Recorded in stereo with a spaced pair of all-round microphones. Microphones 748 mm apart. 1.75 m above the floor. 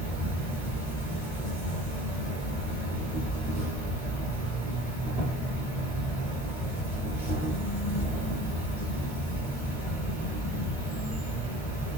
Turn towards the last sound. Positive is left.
turn(degrees=-5)  # may be behind; listen again after turning